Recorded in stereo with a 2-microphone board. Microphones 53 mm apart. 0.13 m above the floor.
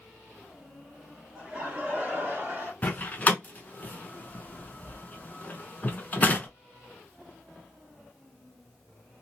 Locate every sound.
1.4 s laughter: 20° right (ahead or behind), 1.9 m; by 2.7 s 40° right (ahead or behind), 2 m
2.8 s a door slam: 30° left (ahead or behind), 0.9 m